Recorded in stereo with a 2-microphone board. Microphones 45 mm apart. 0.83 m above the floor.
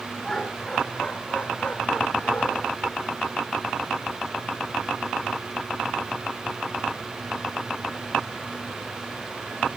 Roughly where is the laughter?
Centre.